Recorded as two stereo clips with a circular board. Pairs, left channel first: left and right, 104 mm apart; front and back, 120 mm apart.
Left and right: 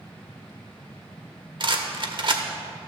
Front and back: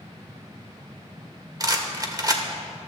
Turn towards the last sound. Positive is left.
turn(degrees=-120)